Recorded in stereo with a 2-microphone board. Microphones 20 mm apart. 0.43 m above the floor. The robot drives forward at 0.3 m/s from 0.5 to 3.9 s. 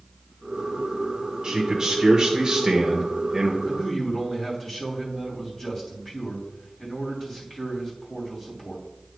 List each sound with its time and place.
1.4 s a man speaking: 35° right (ahead or behind), 1.0 m; by 3.5 s 30° right (ahead or behind), 1.1 m
3.6 s a man speaking: 5° left (ahead or behind), 3 m